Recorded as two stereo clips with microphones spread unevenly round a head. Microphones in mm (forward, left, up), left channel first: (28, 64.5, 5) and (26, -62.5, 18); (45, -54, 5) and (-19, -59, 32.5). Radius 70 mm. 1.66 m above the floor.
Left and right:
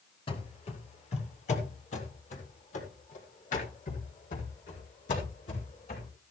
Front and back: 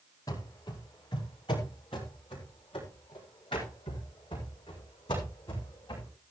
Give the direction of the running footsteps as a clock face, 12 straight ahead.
10 o'clock.